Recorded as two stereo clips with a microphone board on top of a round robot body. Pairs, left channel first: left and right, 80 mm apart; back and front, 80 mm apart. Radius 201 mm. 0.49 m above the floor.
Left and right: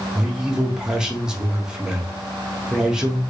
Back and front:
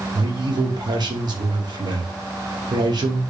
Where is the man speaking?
10° right, 1.7 m.